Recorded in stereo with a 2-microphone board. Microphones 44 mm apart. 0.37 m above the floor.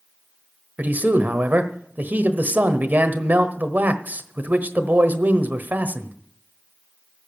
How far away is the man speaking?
About 1.2 m.